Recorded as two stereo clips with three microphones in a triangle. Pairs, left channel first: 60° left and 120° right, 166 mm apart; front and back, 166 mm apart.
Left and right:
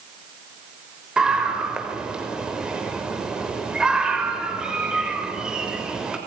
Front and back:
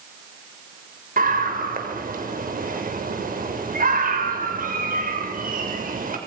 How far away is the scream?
About 6.5 m.